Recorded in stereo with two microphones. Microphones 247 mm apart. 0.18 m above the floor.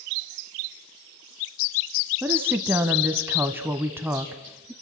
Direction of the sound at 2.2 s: 10° right (ahead or behind).